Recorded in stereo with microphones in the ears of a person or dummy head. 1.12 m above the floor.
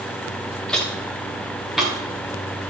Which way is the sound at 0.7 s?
5° left (ahead or behind).